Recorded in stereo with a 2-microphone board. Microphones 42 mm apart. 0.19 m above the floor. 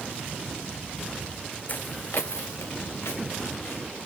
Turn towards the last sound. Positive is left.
turn(degrees=85)